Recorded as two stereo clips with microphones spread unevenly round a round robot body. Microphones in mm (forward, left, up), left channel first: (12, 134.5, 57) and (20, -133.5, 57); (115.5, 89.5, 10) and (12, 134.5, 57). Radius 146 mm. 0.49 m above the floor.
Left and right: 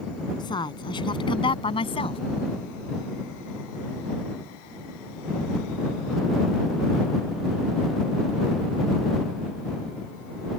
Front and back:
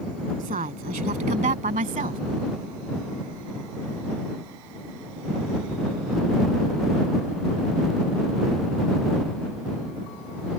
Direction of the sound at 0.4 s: 165° left.